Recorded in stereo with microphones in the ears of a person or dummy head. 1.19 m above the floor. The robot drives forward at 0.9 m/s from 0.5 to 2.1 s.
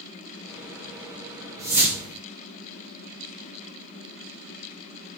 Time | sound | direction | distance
1.6 | a whoosh | 15° right (ahead or behind) | 0.8 m